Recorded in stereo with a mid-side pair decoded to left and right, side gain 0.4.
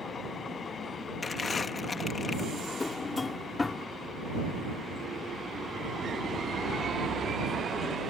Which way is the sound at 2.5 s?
30° left.